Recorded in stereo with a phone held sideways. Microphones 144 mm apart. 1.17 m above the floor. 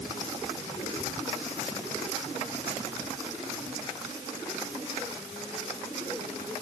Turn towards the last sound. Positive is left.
No sound to turn to.